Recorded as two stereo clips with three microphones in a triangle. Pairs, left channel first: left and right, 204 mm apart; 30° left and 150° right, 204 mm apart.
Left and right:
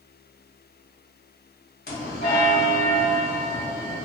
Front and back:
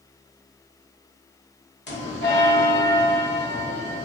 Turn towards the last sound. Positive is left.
turn(degrees=55)